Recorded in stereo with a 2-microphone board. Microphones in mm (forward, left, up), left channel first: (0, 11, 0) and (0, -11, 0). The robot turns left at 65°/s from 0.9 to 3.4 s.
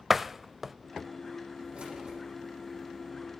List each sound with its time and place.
0.1 s a door slam: 10° right (ahead or behind), 0.6 m
1.7 s keys jangling: 65° right (ahead or behind), 8 m; by 2.2 s 35° right (ahead or behind), 8 m